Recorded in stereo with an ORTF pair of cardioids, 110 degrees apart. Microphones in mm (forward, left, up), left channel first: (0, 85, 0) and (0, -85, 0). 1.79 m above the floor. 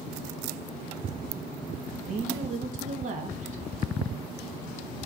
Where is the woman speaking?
50° right, 3 m.